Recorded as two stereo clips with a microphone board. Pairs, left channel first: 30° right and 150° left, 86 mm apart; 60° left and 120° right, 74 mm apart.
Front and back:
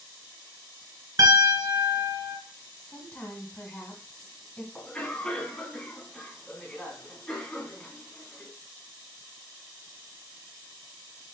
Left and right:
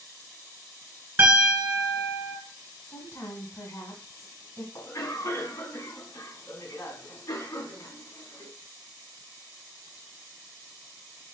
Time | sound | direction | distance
1.2 | a piano | straight behind | 2.5 m
2.8 | a woman speaking | 45° left | 1.7 m
4.8 | a cough | 50° left | 2.5 m